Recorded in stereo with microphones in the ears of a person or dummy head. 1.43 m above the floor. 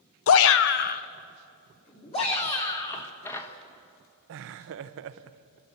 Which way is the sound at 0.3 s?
75° left (ahead or behind).